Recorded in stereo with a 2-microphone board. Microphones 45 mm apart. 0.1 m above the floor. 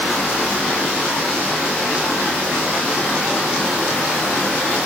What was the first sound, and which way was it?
Only background noise.